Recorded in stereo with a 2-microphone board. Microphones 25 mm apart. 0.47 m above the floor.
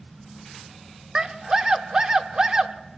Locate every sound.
1.1 s a scream: 30° right (ahead or behind), 0.8 m